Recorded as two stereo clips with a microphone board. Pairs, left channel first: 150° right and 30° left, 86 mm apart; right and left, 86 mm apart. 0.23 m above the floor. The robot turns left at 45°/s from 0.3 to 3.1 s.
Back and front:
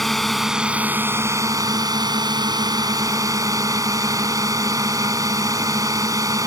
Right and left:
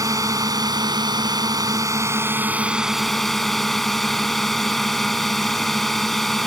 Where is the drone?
120° left; by 6.5 s 5° right.